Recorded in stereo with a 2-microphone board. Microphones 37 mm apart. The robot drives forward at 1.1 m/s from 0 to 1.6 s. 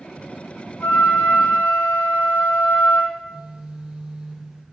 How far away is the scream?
No scream in this recording.